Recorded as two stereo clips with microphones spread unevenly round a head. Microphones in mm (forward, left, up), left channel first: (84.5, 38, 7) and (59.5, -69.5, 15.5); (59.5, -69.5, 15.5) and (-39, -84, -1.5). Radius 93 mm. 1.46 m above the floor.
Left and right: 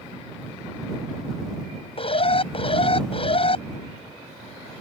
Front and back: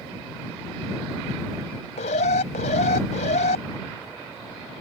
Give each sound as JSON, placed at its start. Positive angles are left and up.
{"t": 2.0, "sound": "an alarm", "azimuth_deg": 45}